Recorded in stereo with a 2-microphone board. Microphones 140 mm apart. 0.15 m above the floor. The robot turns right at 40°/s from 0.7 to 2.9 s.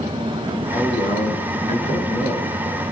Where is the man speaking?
65° left, 3 m; by 2.5 s 140° left, 3 m.